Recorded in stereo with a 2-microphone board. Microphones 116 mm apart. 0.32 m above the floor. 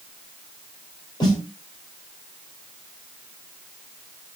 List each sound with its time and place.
1.2 s a snare drum: 40° left (ahead or behind), 2.5 m